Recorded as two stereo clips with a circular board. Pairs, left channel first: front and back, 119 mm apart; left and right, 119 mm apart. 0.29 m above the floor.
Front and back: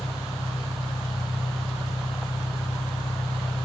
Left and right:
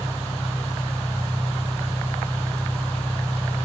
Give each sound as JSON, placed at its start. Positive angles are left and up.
{"t": 0.0, "sound": "an engine running", "azimuth_deg": 20, "distance_m": 6.0}